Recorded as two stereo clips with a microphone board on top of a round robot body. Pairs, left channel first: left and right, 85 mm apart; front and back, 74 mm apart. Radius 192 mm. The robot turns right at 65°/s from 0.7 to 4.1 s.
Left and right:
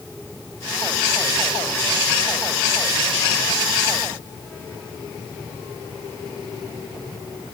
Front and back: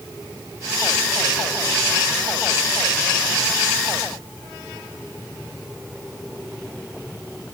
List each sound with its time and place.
Only background noise.